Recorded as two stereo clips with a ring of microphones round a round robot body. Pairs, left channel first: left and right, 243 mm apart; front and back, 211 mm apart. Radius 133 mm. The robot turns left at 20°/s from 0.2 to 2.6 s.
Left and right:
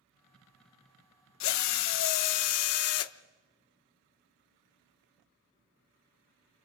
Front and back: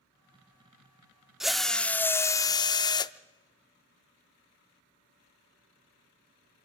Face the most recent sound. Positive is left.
turn(degrees=70)